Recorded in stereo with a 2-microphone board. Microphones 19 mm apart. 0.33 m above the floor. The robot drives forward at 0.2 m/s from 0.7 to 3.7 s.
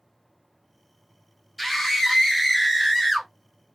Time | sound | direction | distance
1.6 | a scream | 10° left (ahead or behind) | 1.3 m